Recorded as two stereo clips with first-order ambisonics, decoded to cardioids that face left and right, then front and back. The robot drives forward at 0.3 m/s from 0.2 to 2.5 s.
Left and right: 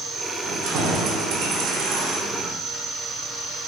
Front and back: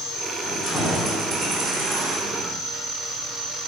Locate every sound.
0.4 s keys jangling: 60° right, 0.5 m; by 2.5 s 135° right, 0.6 m